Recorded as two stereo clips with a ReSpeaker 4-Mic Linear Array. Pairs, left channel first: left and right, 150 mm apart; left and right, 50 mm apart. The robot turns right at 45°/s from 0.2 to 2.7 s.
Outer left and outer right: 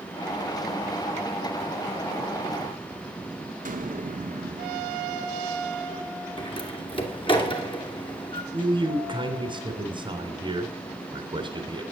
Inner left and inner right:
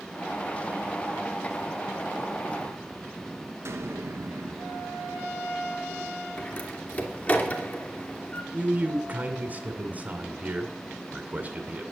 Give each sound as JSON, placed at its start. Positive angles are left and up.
{"t": 3.6, "sound": "an explosion", "side_deg": -60, "distance_m": 1.2}
{"t": 6.4, "sound": "a door slam", "side_deg": 30, "distance_m": 2.5}
{"t": 8.5, "sound": "a man speaking", "side_deg": -30, "distance_m": 2.0}